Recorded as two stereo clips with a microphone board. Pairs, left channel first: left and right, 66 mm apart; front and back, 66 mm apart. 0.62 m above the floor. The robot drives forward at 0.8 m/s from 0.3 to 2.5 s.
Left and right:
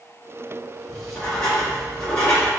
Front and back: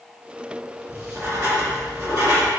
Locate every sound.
0.9 s writing: 165° left, 1.5 m; by 2.5 s 175° left, 2.5 m